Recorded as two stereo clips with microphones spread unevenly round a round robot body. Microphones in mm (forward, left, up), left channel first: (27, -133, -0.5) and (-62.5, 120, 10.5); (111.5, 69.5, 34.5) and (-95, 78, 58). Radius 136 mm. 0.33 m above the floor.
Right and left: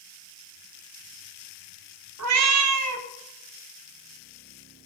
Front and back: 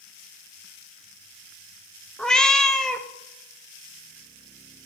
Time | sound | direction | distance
2.2 | a cat meowing | 80° left | 0.7 m